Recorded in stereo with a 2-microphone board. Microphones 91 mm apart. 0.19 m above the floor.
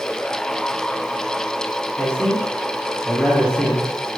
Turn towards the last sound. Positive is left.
turn(degrees=10)  # may be behind; listen again after turning